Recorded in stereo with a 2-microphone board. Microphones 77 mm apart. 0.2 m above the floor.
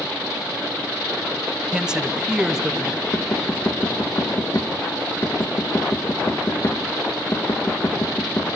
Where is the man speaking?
10° right (ahead or behind), 1.0 m; by 3.0 s 5° right (ahead or behind), 1.7 m.